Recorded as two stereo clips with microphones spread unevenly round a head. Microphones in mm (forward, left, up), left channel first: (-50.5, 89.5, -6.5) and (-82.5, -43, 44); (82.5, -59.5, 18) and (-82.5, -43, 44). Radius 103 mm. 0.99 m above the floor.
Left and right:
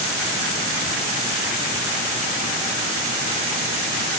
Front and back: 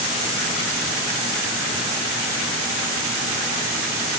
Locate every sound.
Only background noise.